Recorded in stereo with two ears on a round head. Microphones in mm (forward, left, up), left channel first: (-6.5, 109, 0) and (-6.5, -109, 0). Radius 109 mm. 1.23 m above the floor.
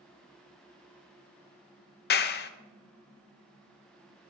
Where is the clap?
45° left (ahead or behind), 0.5 m.